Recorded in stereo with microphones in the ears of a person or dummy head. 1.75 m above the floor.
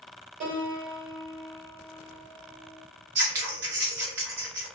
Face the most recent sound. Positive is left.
turn(degrees=-15)  # may be behind; listen again after turning